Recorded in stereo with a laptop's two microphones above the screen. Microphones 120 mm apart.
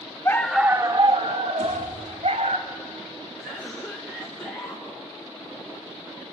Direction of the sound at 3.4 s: 10° left (ahead or behind).